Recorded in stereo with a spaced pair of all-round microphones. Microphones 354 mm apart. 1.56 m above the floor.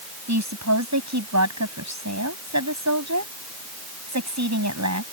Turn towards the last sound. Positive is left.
turn(degrees=-50)  # may be behind; listen again after turning